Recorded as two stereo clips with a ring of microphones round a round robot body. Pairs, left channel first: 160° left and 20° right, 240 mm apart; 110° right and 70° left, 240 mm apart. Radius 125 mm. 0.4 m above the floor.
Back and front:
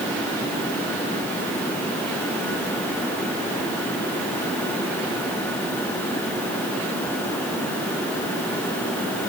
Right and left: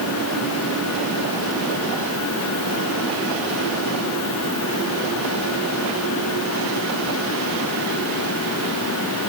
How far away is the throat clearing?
I don't hear throat clearing.